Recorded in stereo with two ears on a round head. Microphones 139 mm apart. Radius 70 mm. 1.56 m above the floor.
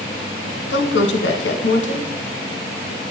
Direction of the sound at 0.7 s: 85° left.